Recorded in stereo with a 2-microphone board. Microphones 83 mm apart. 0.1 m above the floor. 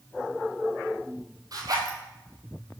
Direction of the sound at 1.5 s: 50° right (ahead or behind).